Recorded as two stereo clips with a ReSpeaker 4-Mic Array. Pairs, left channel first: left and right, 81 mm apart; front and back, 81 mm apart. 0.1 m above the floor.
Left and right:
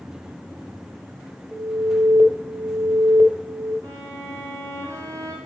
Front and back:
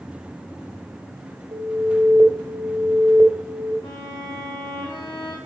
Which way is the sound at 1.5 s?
160° right.